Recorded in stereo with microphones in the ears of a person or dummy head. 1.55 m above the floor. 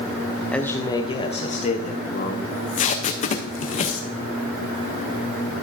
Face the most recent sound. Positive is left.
turn(degrees=40)  # may be behind; listen again after turning